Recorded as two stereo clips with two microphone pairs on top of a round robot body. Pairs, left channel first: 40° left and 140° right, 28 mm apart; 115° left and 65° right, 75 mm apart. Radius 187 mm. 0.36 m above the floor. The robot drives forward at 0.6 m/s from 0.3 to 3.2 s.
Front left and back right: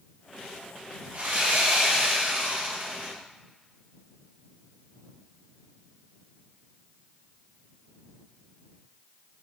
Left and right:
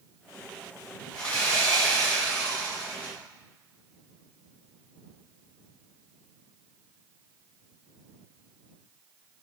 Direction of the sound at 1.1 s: 170° right.